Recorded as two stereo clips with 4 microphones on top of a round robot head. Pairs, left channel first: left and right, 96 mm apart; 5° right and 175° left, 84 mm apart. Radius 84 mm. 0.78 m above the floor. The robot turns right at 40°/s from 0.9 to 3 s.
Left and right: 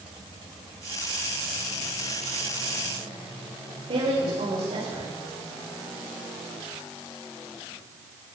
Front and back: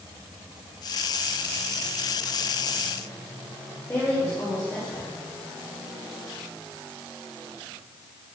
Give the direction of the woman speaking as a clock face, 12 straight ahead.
2 o'clock.